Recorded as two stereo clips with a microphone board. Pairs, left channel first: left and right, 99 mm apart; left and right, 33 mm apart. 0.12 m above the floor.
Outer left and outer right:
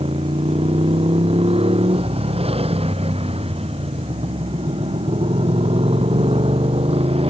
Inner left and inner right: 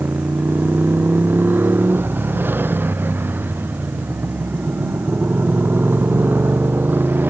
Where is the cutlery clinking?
No cutlery clinking in this recording.